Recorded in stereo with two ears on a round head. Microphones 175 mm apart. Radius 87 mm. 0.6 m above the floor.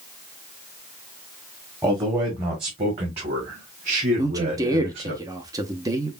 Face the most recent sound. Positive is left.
turn(degrees=-20)  # may be behind; listen again after turning